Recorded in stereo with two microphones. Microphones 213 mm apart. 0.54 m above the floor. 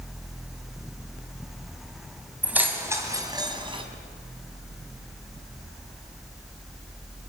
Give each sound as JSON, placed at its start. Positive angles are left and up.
{"t": 2.4, "sound": "keys jangling", "side_deg": -5, "distance_m": 2.0}